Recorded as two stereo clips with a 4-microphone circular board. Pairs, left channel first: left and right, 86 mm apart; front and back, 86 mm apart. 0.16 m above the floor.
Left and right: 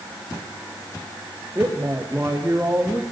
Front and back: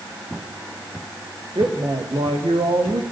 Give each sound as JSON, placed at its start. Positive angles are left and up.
{"t": 1.6, "sound": "a woman speaking", "azimuth_deg": -160, "distance_m": 7.0}